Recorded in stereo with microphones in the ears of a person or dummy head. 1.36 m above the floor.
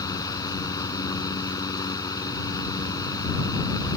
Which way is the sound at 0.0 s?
25° left (ahead or behind).